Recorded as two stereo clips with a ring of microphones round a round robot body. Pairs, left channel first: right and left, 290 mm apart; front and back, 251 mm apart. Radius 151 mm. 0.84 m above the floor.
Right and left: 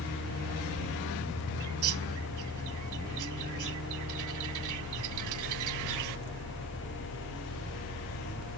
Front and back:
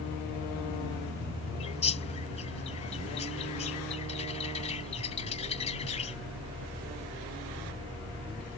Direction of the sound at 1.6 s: 65° left.